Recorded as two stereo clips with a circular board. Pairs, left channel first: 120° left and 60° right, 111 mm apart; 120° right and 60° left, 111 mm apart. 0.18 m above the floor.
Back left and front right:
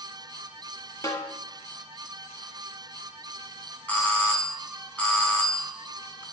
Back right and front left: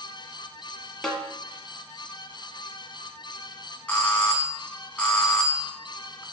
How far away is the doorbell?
About 1.6 m.